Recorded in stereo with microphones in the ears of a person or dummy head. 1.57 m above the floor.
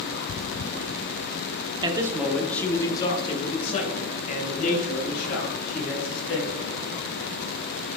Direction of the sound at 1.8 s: 20° right (ahead or behind).